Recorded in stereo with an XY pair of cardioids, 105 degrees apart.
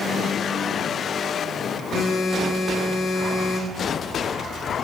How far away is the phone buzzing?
About 1.5 m.